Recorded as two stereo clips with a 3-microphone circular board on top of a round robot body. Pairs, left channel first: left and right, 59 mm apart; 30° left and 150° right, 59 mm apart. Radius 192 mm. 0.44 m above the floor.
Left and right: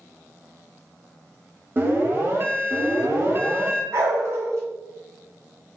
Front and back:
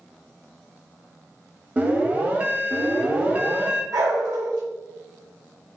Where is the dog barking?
135° right, 1.1 m.